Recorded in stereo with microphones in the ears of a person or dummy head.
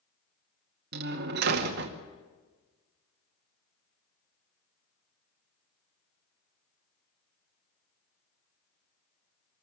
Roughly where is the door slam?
Right.